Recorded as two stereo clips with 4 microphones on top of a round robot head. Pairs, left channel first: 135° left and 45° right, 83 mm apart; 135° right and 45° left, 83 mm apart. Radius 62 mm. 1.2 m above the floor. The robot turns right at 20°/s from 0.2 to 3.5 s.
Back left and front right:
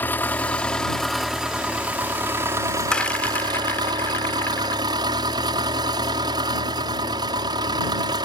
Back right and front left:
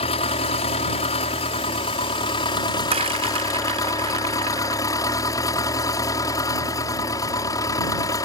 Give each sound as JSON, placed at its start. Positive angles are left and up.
{"t": 0.0, "sound": "an engine running", "azimuth_deg": -150}
{"t": 2.9, "sound": "a rattle", "azimuth_deg": 55}